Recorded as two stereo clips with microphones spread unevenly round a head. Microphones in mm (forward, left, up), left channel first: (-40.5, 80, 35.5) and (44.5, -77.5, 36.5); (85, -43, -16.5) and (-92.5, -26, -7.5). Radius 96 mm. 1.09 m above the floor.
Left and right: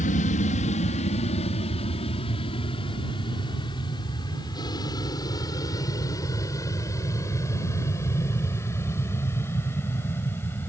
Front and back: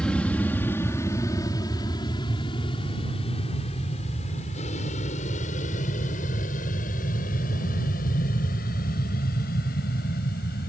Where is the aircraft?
80° left; by 10.7 s 40° left.